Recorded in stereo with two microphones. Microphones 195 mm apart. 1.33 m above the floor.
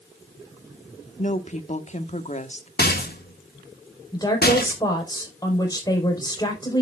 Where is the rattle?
55° left (ahead or behind), 1.6 m.